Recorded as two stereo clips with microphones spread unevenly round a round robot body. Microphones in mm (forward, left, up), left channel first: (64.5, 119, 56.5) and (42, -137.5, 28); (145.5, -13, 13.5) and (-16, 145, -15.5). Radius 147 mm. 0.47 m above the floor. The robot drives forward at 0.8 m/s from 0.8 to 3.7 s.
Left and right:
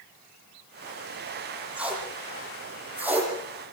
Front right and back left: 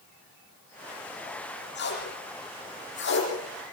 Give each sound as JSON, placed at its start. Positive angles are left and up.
{"t": 1.8, "sound": "tape being pulled", "azimuth_deg": -10, "distance_m": 9.5}